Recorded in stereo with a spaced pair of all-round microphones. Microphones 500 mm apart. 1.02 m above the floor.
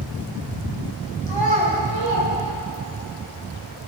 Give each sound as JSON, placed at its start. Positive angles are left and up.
{"t": 1.3, "sound": "a child speaking", "side_deg": -55, "distance_m": 4.0}